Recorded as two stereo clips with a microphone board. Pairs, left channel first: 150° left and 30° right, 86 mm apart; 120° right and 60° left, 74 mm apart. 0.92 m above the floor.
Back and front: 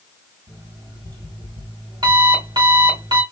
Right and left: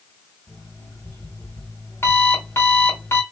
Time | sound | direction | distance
0.5 | an alarm clock | 65° right | 2.5 m